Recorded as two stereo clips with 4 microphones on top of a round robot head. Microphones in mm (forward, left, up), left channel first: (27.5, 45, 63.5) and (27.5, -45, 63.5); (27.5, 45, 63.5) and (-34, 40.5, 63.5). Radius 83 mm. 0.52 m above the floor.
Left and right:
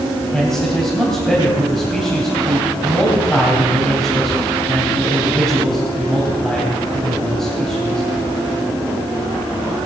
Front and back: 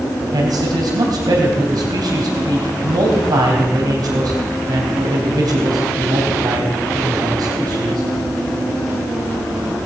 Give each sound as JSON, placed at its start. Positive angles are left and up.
{"t": 0.3, "sound": "a man speaking", "azimuth_deg": 175, "distance_m": 3.0}